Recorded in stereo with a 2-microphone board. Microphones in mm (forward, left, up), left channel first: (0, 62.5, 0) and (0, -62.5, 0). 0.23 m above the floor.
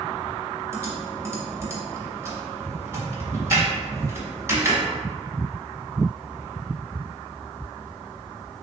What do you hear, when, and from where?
0.7 s typing on a keyboard: 25° right (ahead or behind), 1.0 m